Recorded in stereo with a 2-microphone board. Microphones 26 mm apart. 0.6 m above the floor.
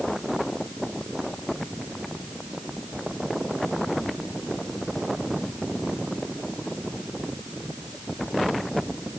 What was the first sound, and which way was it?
Only background noise.